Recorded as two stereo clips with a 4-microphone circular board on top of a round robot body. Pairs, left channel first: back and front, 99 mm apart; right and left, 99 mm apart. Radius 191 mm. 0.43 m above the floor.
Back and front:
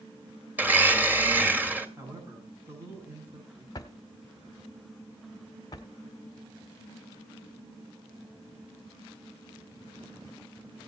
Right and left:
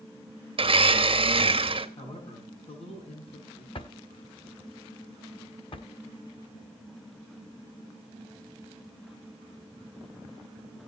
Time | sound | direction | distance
0.6 | a blender | 70° left | 2 m
2.0 | a man speaking | 65° right | 6 m
3.8 | a drawer | 125° right | 0.9 m